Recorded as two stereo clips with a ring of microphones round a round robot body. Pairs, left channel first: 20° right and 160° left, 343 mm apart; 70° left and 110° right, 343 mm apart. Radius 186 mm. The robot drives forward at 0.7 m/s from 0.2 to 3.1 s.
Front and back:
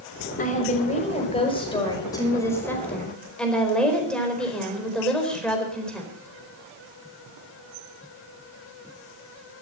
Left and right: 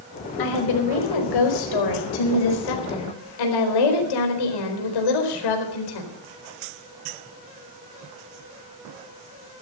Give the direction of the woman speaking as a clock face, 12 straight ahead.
10 o'clock.